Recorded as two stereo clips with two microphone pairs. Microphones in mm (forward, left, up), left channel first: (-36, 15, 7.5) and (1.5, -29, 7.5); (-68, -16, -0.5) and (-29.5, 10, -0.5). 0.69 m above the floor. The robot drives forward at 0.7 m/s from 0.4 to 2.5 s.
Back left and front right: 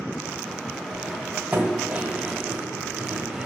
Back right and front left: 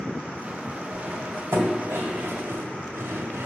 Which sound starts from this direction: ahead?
Cutlery clinking, at 0.9 s.